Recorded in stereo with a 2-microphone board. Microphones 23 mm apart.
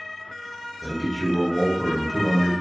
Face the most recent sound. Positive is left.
turn(degrees=45)  # may be behind; listen again after turning